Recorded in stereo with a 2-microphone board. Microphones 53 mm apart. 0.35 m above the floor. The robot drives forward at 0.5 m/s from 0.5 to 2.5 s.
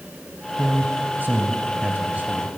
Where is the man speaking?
40° right (ahead or behind), 2 m; by 2.5 s 30° right (ahead or behind), 3 m.